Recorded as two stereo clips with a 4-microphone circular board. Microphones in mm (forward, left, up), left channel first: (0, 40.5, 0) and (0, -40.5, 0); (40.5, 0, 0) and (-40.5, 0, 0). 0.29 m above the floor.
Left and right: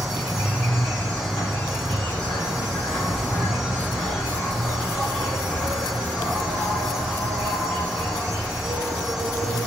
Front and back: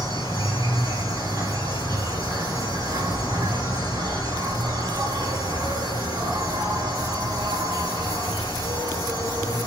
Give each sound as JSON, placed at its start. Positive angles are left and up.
{"t": 0.0, "sound": "an insect", "azimuth_deg": 175, "distance_m": 2.5}